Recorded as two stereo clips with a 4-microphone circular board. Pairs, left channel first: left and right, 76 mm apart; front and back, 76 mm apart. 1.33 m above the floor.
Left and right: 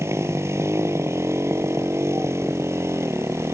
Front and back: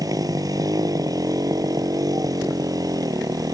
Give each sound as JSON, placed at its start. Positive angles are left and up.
{"t": 0.0, "sound": "a motorcycle", "azimuth_deg": -145}